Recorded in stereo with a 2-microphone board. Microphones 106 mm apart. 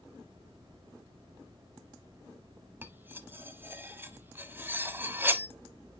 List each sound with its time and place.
2.8 s cutlery clinking: 20° right (ahead or behind), 0.9 m